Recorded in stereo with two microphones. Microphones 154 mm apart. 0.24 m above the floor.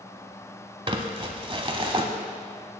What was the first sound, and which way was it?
Crumpling, 35° right (ahead or behind).